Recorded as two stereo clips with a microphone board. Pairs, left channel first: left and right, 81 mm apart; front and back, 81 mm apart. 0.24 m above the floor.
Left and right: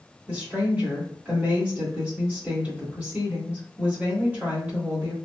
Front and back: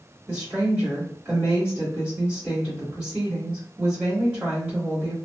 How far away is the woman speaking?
About 1.5 m.